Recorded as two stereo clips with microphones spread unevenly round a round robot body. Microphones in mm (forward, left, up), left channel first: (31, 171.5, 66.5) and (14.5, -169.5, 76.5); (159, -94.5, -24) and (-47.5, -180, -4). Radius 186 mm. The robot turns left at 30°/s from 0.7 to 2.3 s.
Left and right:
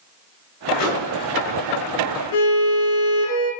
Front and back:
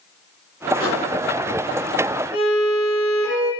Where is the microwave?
130° left, 3 m; by 1.1 s 120° left, 3 m.